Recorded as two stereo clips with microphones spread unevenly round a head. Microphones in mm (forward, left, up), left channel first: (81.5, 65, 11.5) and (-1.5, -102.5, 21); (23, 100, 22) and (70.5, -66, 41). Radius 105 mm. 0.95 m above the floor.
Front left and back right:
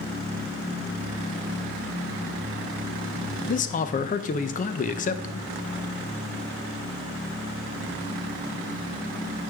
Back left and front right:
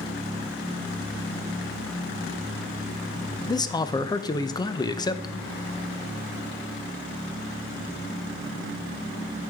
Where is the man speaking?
55° left, 0.6 m.